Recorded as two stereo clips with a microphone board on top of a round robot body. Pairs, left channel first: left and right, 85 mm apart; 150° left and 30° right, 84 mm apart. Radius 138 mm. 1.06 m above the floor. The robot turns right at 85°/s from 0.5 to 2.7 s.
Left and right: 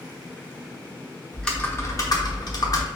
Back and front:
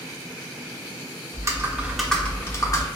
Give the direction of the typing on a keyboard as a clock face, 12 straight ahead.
12 o'clock.